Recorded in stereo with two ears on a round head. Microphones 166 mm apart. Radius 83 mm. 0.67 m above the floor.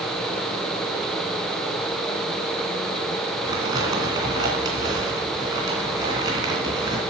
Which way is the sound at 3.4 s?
20° right (ahead or behind).